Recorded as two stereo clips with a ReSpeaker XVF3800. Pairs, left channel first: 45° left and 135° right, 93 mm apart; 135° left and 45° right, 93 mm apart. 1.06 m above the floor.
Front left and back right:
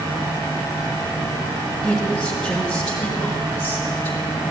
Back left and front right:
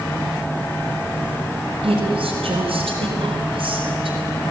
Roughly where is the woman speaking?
Ahead right.